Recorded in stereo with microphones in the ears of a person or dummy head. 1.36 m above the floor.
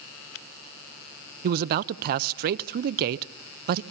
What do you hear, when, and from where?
1.4 s a man speaking: 50° right (ahead or behind), 0.6 m